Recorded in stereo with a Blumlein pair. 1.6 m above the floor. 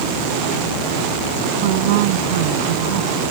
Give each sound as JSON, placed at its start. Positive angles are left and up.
{"t": 1.6, "sound": "a woman speaking", "azimuth_deg": -50}